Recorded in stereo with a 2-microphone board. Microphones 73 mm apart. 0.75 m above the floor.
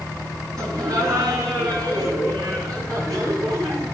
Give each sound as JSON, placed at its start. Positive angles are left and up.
{"t": 0.6, "sound": "laughter", "side_deg": -60, "distance_m": 5.0}